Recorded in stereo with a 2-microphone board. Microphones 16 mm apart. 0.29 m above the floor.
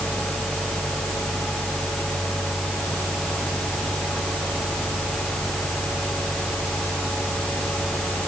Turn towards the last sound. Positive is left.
No sound to turn to.